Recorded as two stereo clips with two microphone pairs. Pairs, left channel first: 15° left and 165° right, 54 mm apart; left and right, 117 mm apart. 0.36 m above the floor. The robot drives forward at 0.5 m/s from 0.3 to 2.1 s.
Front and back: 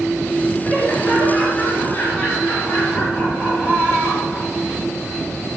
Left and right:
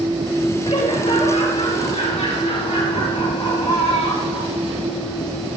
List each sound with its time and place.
0.6 s laughter: 65° left, 6 m; by 4.5 s 70° left, 5.5 m